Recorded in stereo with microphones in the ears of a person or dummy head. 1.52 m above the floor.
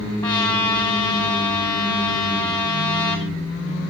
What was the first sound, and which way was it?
A trumpet, 20° left (ahead or behind).